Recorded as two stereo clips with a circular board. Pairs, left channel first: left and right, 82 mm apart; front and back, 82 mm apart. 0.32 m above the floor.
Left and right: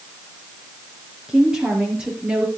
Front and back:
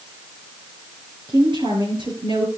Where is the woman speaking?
170° right, 6 m; by 2.5 s 165° right, 5 m.